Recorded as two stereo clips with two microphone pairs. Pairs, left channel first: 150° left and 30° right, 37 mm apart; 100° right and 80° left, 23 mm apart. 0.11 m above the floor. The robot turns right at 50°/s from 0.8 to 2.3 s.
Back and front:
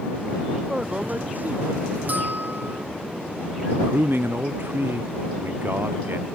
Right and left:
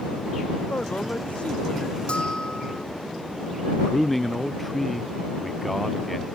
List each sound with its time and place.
0.7 s a man speaking: 100° right; by 2.0 s 40° right
2.1 s a bell: 65° right; by 2.9 s 55° right
3.7 s a man speaking: 15° right